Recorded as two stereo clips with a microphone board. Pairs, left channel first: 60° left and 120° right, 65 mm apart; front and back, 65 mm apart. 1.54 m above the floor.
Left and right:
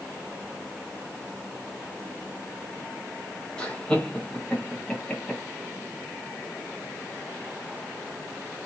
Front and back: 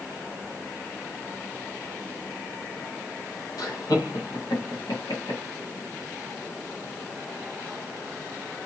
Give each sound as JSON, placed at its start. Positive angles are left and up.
{"t": 3.6, "sound": "laughter", "azimuth_deg": -15, "distance_m": 1.4}